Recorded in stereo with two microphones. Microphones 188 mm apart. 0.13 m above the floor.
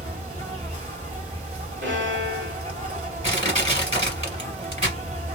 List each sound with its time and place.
0.0 s an insect: 35° right (ahead or behind), 1.6 m
1.8 s a violin: 80° right, 1.6 m
3.2 s crushing: 35° right (ahead or behind), 2.5 m